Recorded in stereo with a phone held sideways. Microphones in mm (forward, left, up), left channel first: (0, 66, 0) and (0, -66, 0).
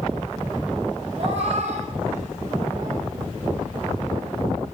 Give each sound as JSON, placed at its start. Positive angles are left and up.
{"t": 1.2, "sound": "a cat meowing", "side_deg": -50, "distance_m": 2.0}